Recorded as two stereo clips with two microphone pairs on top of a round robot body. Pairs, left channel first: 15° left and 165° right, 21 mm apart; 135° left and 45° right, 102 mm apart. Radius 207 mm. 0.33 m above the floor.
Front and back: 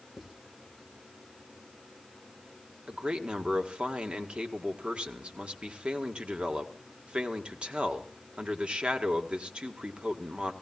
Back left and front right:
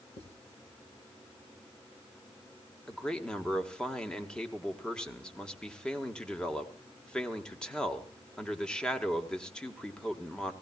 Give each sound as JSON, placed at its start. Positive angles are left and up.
{"t": 0.2, "sound": "writing", "azimuth_deg": 120, "distance_m": 3.0}
{"t": 2.9, "sound": "a man speaking", "azimuth_deg": -145, "distance_m": 1.8}